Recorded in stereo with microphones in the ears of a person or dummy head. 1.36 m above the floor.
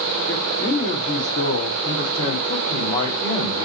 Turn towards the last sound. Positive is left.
turn(degrees=25)  # may be behind; listen again after turning